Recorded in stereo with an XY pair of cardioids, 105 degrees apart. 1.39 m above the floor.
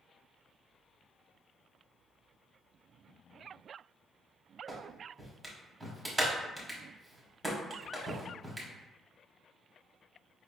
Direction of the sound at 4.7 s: 20° right.